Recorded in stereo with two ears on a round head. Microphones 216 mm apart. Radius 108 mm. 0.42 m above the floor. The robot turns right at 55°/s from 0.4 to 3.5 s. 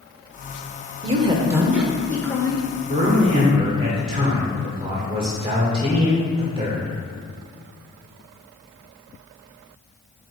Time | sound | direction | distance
1.0 | a woman speaking | 50° right | 0.9 m
2.9 | a man speaking | 80° right | 1.1 m